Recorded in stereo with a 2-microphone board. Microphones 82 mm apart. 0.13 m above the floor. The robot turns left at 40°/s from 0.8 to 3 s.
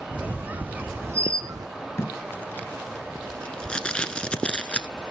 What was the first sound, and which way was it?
A squeak, 20° right.